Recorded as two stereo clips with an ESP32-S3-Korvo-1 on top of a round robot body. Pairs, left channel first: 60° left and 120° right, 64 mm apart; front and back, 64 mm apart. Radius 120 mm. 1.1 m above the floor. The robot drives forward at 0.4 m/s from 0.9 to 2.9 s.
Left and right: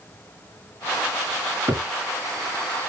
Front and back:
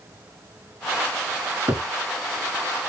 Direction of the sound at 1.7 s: 135° right.